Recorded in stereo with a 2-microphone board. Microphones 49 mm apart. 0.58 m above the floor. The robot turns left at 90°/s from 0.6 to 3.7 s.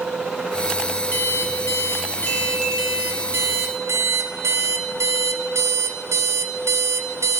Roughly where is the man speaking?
No man speaking in this recording.